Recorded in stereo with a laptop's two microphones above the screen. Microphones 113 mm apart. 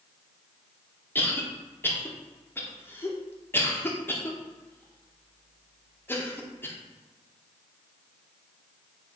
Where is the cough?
15° left (ahead or behind), 1.0 m.